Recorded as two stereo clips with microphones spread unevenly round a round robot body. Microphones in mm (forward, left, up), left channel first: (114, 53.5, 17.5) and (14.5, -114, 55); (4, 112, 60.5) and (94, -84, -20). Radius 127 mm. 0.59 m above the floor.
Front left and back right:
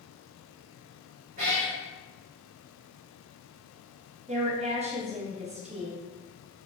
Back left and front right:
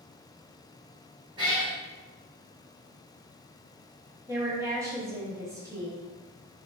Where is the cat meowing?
155° right, 0.7 m.